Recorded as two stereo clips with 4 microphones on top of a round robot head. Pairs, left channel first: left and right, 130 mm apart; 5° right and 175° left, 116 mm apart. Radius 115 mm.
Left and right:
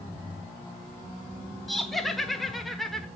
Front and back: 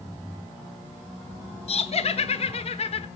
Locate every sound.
1.7 s laughter: straight ahead, 1.2 m